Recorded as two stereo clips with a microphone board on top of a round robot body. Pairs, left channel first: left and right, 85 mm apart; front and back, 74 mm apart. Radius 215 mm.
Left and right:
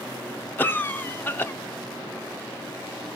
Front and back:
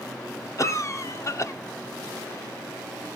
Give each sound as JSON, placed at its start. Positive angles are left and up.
{"t": 0.6, "sound": "a cough", "azimuth_deg": 30, "distance_m": 1.1}